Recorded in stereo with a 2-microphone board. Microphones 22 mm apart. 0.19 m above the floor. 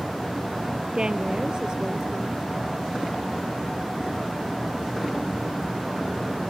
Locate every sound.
0.9 s a woman speaking: 35° right (ahead or behind)